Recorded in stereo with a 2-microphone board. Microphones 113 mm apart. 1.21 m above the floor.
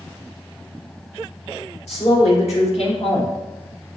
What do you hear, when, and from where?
1.9 s a woman speaking: 80° left, 3 m; by 3.4 s 50° left (ahead or behind), 1.1 m